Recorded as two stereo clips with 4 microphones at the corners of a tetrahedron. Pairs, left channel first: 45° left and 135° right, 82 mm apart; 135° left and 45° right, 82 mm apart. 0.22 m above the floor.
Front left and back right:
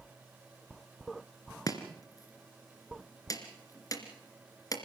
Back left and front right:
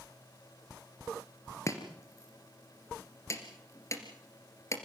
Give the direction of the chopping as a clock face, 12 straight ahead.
9 o'clock.